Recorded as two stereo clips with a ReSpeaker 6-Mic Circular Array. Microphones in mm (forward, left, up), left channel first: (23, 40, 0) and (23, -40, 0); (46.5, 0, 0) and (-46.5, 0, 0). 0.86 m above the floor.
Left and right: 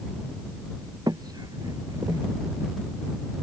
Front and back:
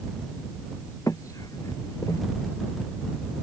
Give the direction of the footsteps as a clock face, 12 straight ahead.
2 o'clock.